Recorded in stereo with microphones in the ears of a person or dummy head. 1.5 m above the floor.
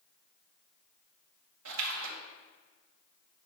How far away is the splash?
About 1.6 m.